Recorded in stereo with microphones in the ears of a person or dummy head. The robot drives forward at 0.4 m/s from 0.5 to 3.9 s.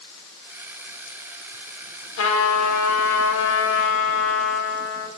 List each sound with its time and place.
2.2 s a trumpet: 70° left (ahead or behind), 1.1 m; by 5.1 s 75° left (ahead or behind), 1.1 m